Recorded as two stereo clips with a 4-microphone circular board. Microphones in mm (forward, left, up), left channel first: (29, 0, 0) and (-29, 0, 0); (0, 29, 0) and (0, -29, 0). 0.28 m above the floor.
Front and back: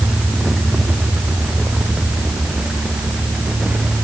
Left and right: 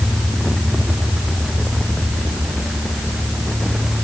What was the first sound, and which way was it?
Only background noise.